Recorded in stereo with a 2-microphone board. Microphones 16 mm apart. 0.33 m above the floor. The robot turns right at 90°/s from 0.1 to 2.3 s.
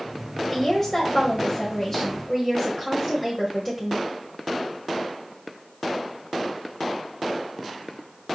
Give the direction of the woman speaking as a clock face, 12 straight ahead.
12 o'clock.